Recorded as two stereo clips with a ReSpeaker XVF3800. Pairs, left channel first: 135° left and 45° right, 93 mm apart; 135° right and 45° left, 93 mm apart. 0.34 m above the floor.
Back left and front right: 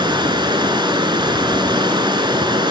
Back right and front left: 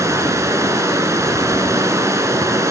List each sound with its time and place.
0.0 s running water: 10° right, 1.0 m